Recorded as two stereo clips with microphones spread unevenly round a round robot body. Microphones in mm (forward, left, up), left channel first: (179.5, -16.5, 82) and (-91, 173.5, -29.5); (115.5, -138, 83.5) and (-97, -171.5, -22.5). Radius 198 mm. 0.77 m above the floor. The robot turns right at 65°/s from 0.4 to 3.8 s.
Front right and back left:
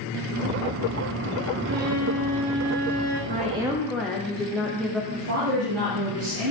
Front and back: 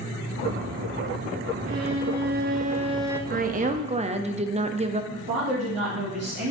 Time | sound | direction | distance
1.6 | a violin | 160° left | 1.1 m
3.3 | a woman speaking | 165° right | 0.8 m
5.1 | a woman speaking | straight behind | 3.5 m